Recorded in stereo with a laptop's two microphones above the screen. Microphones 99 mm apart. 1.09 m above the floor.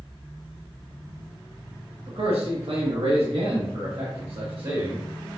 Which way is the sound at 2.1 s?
75° right (ahead or behind).